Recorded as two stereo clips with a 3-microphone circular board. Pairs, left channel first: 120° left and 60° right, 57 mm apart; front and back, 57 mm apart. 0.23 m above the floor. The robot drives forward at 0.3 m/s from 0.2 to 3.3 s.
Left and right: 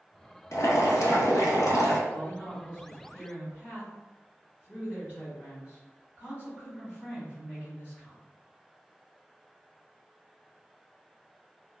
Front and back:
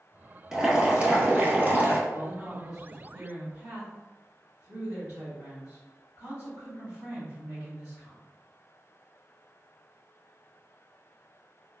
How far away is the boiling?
About 0.8 m.